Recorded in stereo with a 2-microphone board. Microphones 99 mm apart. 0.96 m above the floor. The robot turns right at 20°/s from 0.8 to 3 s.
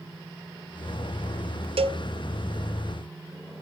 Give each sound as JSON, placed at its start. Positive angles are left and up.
{"t": 1.8, "sound": "a cowbell", "side_deg": -75, "distance_m": 0.6}